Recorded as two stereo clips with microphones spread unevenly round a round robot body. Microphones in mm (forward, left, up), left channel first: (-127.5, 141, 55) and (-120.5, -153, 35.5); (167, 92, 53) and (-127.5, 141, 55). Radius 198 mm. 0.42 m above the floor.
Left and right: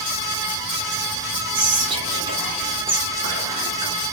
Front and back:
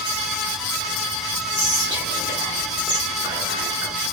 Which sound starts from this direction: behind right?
Whispering, at 1.5 s.